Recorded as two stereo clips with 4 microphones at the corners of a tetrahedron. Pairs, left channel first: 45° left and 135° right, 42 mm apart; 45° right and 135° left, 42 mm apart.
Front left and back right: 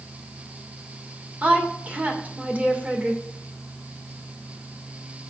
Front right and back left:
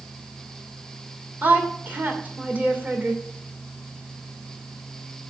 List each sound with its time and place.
1.4 s a woman speaking: 175° left, 2.5 m